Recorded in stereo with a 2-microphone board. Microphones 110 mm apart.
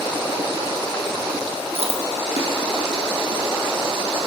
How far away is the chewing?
About 2.5 m.